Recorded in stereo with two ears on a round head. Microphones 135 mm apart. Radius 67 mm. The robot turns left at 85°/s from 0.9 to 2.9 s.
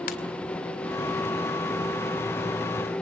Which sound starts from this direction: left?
A ringtone, at 0.1 s.